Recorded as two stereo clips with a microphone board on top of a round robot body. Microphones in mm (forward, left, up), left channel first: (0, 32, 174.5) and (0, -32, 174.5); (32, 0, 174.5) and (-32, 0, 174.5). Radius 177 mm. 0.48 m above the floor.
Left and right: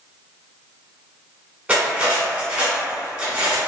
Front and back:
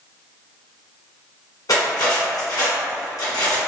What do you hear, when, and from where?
1.7 s cutlery clinking: 15° right, 1.7 m